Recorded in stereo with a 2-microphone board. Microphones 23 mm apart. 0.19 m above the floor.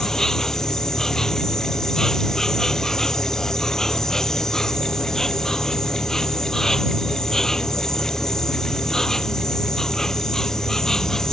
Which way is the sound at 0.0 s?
20° left (ahead or behind).